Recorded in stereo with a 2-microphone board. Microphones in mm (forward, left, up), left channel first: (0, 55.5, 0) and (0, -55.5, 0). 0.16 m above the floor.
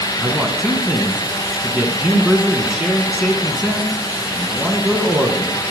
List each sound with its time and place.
0.2 s a man speaking: 5° right (ahead or behind), 1.7 m